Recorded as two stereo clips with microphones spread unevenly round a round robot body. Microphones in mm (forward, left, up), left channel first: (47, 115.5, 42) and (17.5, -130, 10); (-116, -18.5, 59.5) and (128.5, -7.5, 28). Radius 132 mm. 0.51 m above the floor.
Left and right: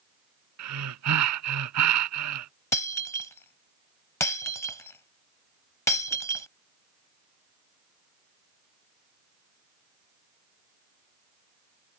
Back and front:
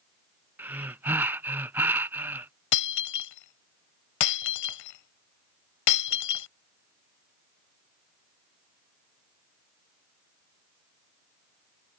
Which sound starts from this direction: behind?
Breaking glass, at 2.7 s.